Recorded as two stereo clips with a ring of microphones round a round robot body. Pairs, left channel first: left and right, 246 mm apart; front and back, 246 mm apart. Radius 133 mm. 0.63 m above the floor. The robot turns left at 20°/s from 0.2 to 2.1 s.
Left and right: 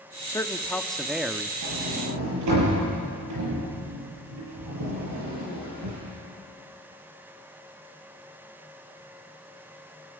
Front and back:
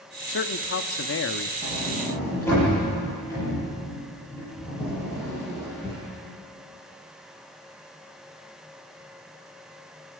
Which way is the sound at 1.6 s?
70° right.